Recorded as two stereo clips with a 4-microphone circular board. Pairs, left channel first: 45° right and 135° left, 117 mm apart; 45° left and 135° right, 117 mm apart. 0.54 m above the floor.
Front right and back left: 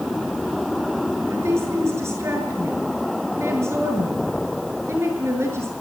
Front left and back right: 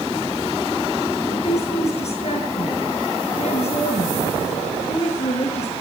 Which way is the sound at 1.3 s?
70° left.